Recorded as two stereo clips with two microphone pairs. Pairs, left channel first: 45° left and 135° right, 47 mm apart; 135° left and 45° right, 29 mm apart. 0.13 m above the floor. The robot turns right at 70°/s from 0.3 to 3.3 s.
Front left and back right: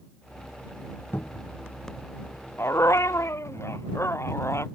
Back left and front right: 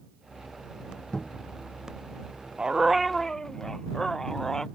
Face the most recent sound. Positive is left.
turn(degrees=65)